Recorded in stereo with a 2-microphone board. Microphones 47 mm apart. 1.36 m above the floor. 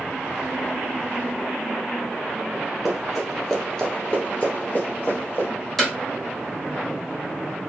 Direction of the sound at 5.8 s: 5° left (ahead or behind).